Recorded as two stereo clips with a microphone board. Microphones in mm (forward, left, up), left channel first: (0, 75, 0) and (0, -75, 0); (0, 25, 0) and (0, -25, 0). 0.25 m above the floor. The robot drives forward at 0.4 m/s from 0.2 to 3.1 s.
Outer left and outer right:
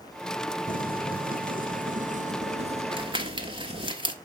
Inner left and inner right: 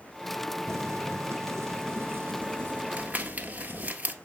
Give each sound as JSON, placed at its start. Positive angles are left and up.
{"t": 0.7, "sound": "boiling", "side_deg": -70, "distance_m": 0.8}
{"t": 2.9, "sound": "crumpling", "side_deg": -35, "distance_m": 1.1}